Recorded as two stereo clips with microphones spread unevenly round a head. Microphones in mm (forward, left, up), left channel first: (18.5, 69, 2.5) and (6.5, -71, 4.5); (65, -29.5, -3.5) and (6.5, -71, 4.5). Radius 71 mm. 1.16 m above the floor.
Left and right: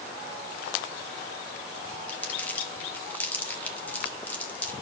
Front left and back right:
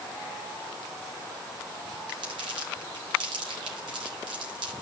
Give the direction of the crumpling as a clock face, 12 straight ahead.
7 o'clock.